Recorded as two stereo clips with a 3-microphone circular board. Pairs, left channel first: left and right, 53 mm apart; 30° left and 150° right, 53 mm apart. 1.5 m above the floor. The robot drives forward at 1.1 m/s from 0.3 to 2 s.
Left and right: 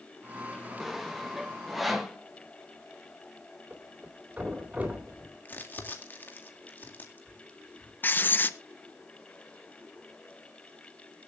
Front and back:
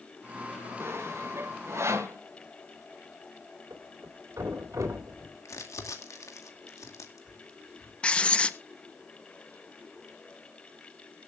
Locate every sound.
0.8 s sawing: straight behind, 0.5 m
3.7 s a thud: 155° right, 3.5 m
5.5 s crumpling: 35° left, 2 m
8.0 s writing: 85° left, 0.6 m